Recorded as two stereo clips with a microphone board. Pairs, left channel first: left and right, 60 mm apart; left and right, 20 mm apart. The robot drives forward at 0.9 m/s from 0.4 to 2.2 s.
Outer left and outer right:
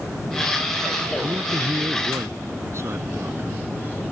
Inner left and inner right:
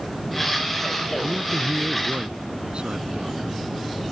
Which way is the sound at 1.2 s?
50° right (ahead or behind).